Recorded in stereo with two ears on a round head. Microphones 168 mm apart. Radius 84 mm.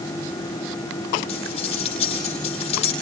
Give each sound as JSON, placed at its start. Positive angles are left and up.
{"t": 1.3, "sound": "cutlery clinking", "side_deg": 35, "distance_m": 8.5}